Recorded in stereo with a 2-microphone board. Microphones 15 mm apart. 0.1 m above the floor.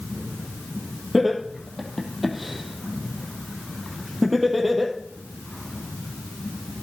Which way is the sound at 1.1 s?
5° right (ahead or behind).